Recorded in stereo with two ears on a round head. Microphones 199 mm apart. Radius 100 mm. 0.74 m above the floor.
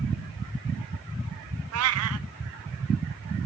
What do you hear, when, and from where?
1.7 s a cat meowing: 75° right (ahead or behind), 0.6 m